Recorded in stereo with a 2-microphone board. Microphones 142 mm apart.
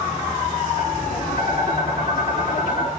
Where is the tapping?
65° left (ahead or behind), 6 m.